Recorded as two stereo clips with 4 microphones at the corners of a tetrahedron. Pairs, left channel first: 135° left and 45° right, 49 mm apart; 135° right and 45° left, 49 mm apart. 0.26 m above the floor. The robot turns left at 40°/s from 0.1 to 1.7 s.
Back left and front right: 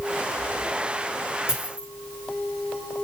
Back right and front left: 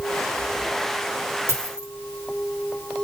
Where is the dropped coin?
25° left, 4 m; by 1.9 s 20° left, 4 m.